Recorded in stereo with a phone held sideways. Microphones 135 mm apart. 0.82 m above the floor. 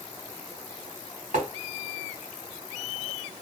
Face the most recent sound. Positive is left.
turn(degrees=-75)  # may be behind; listen again after turning